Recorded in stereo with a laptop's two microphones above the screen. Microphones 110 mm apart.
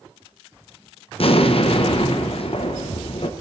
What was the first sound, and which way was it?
An explosion, 60° left (ahead or behind).